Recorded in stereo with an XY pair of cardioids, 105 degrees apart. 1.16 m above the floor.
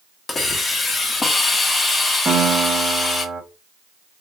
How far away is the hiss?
About 1.0 m.